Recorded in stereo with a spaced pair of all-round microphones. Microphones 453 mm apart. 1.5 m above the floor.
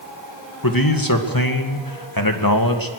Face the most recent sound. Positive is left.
turn(degrees=45)  # may be behind; listen again after turning